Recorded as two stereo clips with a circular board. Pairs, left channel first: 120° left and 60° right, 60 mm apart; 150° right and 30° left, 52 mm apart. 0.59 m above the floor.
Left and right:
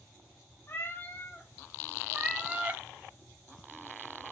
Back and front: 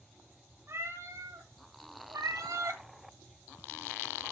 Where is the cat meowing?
70° left, 2 m; by 2.8 s straight ahead, 1.7 m.